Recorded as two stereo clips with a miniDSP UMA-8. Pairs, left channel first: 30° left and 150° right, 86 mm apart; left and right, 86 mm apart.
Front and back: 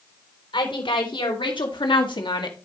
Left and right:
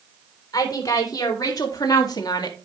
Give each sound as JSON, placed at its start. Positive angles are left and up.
{"t": 0.5, "sound": "a woman speaking", "azimuth_deg": 45, "distance_m": 3.5}